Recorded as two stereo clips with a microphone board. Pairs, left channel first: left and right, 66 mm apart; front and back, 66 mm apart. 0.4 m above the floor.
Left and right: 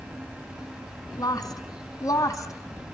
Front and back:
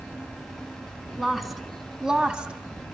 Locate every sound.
1.2 s a woman speaking: 90° left, 3 m; by 2.5 s 110° left, 2 m